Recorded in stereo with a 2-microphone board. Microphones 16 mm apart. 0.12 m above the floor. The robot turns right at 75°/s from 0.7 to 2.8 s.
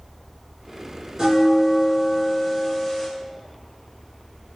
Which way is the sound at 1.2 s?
30° right (ahead or behind).